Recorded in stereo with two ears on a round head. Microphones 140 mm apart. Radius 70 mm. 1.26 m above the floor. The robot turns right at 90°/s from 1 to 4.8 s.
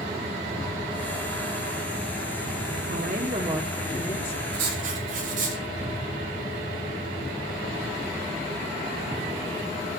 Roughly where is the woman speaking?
Right.